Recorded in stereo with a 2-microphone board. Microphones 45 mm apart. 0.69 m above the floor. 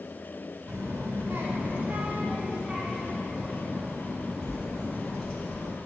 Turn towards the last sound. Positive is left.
turn(degrees=0)  # may be behind; listen again after turning